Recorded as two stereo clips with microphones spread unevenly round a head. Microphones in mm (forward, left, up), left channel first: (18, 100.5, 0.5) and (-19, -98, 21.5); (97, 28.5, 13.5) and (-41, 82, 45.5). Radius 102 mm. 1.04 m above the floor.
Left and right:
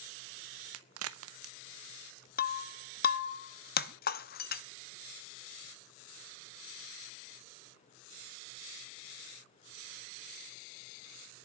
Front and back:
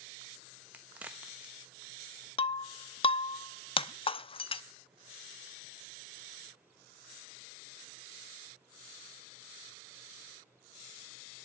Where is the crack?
115° right, 1.1 m.